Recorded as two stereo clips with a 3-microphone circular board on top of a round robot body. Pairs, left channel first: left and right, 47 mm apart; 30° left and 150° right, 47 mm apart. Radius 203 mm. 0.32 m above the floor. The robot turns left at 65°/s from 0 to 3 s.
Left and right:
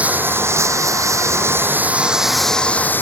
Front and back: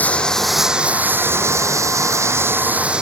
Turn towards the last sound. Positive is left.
turn(degrees=135)